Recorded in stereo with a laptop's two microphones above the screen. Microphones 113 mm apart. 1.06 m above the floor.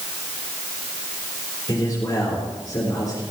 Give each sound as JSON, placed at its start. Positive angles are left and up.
{"t": 1.7, "sound": "a man speaking", "side_deg": 35, "distance_m": 3.5}